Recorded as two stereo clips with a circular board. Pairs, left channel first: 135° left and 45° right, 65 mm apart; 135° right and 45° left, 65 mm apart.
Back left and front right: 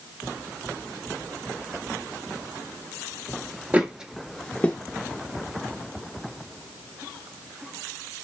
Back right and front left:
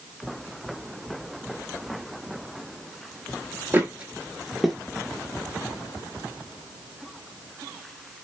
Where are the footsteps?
10° left, 0.6 m; by 4.8 s 140° left, 0.5 m.